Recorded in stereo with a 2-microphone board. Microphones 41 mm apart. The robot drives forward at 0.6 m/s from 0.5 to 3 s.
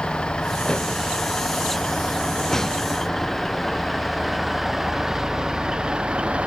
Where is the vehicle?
25° left (ahead or behind); by 6.5 s 30° right (ahead or behind).